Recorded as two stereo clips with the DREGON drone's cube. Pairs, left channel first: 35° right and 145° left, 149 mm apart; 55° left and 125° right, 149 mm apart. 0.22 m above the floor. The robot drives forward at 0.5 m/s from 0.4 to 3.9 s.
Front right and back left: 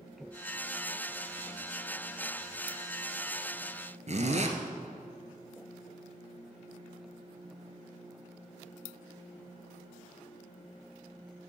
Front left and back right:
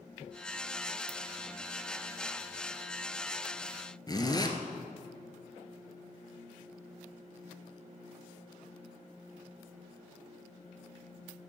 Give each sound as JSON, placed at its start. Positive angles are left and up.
{"t": 4.1, "sound": "a zipper", "azimuth_deg": 115, "distance_m": 1.1}